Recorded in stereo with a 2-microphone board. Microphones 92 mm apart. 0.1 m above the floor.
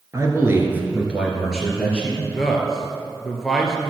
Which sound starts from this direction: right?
A man speaking, at 0.1 s.